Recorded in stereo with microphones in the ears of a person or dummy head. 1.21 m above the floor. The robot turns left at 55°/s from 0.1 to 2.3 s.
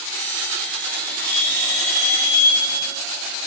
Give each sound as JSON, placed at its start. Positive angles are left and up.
{"t": 1.3, "sound": "a bell", "azimuth_deg": -55, "distance_m": 7.5}